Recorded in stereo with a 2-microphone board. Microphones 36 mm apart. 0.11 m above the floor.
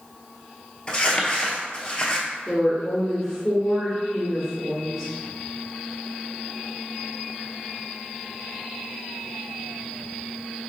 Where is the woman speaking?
Centre (ahead or behind), 1.8 m.